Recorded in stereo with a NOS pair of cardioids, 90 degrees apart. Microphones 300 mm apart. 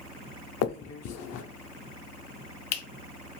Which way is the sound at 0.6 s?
60° left.